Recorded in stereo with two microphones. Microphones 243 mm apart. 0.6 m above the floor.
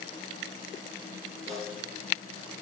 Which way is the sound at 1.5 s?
30° right (ahead or behind).